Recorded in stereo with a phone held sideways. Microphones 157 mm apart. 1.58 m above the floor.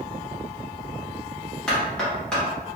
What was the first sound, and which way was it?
Knocking, 5° left (ahead or behind).